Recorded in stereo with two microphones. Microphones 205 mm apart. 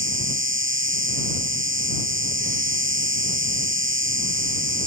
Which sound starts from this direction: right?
An insect, at 0.0 s.